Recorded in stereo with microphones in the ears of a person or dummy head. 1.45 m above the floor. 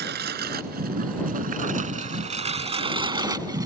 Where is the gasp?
I don't hear a gasp.